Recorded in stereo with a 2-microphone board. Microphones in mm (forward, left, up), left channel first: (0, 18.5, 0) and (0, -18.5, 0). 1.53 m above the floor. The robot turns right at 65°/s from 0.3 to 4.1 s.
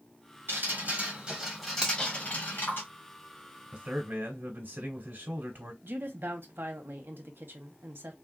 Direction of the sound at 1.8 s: 25° right (ahead or behind).